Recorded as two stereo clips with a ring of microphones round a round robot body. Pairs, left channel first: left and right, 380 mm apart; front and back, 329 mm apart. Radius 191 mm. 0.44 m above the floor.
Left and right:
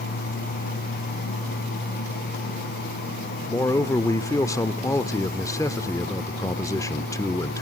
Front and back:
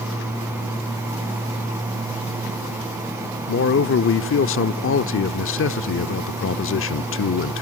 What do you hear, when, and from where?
3.5 s a man speaking: 15° left, 0.9 m